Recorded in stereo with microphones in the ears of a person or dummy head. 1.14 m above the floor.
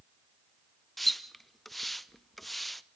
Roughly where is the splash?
Centre.